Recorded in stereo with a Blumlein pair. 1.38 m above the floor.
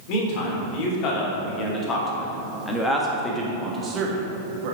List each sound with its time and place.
0.1 s a man speaking: 40° left, 3.5 m; by 4.8 s 45° right, 1.8 m